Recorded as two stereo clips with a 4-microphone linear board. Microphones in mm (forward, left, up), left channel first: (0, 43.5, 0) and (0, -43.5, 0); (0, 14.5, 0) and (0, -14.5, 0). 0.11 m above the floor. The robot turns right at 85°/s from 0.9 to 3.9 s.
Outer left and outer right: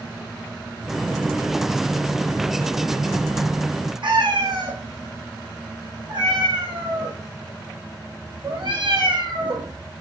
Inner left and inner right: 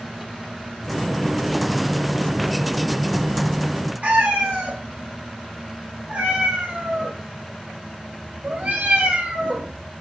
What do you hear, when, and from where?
4.0 s a cat meowing: 70° right (ahead or behind), 5 m